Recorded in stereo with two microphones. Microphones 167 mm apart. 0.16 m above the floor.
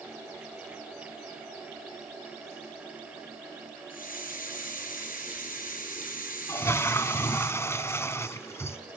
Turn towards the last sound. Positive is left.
turn(degrees=15)  # may be behind; listen again after turning